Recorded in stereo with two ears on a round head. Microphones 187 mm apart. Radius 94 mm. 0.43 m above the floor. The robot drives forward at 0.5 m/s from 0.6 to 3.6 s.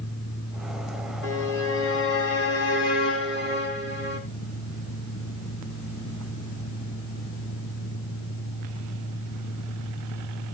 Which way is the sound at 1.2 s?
70° left (ahead or behind).